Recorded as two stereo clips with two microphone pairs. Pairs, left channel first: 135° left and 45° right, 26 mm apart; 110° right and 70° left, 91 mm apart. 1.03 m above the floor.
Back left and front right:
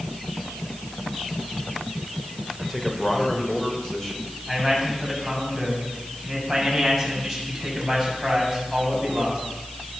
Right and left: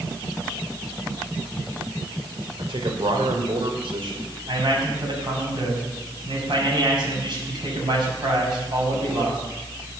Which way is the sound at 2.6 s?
60° left.